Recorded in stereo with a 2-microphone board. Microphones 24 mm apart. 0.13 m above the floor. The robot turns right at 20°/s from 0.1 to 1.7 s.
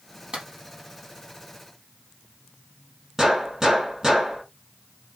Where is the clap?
40° right (ahead or behind), 4 m.